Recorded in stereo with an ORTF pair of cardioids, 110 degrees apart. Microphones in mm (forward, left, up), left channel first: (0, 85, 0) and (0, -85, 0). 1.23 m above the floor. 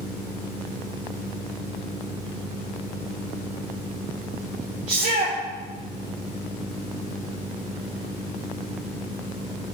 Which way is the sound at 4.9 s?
45° right.